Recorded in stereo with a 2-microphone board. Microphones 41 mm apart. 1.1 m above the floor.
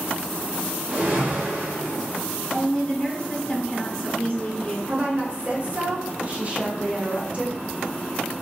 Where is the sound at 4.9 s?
30° right (ahead or behind), 0.7 m.